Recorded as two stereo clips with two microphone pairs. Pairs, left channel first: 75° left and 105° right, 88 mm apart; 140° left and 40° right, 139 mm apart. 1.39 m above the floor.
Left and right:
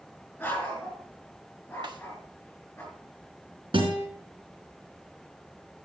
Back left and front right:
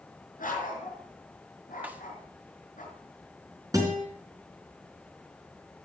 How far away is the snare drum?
About 1.2 m.